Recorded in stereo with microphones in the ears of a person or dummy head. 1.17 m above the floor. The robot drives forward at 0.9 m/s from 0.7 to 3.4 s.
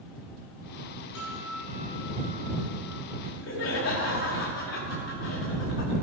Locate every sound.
1.1 s a guitar: 80° left, 4 m; by 3.1 s 70° left (ahead or behind), 4.5 m
3.2 s laughter: 75° left (ahead or behind), 2 m; by 5.9 s 70° left (ahead or behind), 2 m